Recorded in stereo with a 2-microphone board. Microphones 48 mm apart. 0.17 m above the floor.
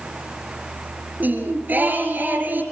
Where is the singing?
40° right (ahead or behind), 3 m.